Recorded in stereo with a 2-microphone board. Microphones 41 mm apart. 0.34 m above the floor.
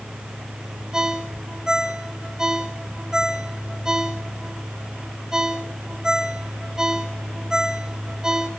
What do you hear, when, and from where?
0.9 s a ringtone: 15° right (ahead or behind), 1.4 m